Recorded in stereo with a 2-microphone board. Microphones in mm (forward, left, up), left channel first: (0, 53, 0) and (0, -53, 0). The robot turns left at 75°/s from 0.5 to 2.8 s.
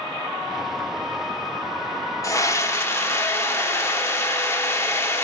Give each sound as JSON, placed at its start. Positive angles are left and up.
{"t": 2.2, "sound": "a scream", "side_deg": 25, "distance_m": 0.9}